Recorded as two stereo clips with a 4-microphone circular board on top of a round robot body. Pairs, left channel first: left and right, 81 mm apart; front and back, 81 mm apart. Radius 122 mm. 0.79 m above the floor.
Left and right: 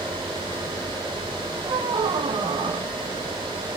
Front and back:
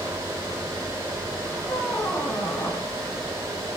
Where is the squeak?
75° right, 1.2 m.